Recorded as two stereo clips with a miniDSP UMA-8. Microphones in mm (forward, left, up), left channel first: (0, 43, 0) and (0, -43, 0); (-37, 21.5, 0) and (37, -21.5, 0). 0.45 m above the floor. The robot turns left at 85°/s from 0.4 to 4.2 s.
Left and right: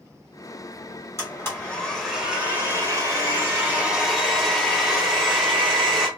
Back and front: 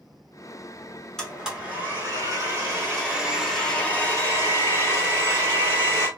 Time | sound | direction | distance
1.2 | a blender | 75° left | 1.1 m